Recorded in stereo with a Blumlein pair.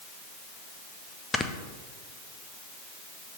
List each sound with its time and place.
1.3 s snoring: 10° left, 0.5 m